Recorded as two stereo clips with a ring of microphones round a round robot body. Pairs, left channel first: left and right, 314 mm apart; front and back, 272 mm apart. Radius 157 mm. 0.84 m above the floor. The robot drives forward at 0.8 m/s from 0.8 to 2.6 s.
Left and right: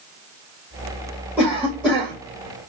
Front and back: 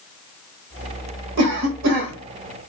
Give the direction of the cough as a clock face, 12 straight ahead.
6 o'clock.